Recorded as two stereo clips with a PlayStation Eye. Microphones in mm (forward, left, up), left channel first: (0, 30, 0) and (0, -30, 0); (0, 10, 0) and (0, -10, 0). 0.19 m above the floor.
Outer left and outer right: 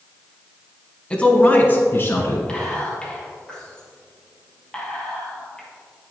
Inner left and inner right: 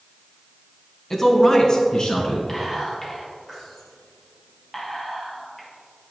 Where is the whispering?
15° left (ahead or behind), 4 m.